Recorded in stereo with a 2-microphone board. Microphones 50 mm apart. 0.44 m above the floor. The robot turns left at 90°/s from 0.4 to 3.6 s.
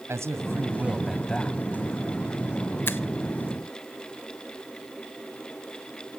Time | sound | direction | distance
0.1 | a man speaking | 110° right | 2 m
2.9 | a finger snap | 45° left (ahead or behind) | 1.0 m